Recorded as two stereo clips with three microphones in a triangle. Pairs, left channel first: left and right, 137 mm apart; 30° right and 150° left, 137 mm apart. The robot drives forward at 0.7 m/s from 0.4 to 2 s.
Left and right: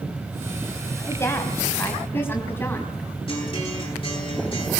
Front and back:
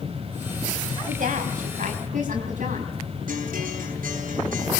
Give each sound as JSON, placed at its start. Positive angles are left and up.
{"t": 1.1, "sound": "a woman speaking", "azimuth_deg": 160, "distance_m": 3.0}
{"t": 3.3, "sound": "a guitar", "azimuth_deg": 145, "distance_m": 10.0}